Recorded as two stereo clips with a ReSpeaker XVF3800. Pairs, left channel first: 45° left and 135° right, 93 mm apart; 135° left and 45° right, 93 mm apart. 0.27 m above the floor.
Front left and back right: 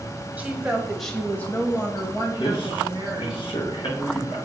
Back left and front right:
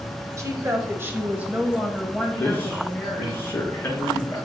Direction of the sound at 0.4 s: 70° right.